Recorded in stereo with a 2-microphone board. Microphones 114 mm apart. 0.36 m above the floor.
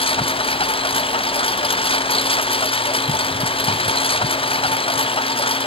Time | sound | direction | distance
0.0 | a lawn mower | 50° left (ahead or behind) | ?